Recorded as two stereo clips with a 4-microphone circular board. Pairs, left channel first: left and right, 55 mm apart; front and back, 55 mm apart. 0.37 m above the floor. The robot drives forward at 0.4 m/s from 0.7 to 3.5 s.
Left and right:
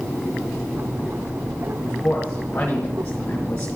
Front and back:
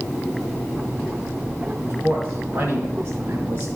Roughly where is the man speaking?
Behind left.